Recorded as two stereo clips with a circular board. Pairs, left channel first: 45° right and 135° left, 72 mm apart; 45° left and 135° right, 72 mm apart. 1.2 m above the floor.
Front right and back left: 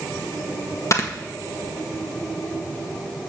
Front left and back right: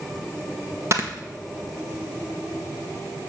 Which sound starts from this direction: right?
Snoring, at 0.9 s.